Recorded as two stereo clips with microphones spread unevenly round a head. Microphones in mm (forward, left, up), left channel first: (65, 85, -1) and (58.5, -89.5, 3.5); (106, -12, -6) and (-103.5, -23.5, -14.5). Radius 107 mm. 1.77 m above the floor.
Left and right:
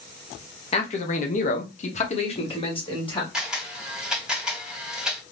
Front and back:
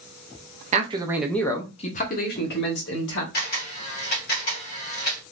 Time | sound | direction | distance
0.7 | a man speaking | 135° left | 0.8 m
3.3 | a camera shutter | 10° right | 2 m